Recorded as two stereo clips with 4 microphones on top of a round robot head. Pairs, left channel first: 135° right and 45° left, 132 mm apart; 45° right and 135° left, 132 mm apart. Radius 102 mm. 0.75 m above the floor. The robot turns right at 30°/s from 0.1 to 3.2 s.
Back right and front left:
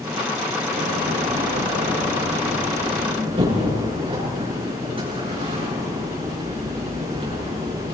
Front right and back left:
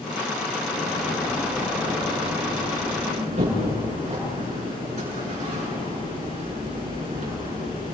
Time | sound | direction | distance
0.7 | a door slam | 20° left | 7 m